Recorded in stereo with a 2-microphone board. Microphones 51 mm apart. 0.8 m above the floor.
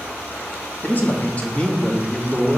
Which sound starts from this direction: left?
A man speaking, at 0.8 s.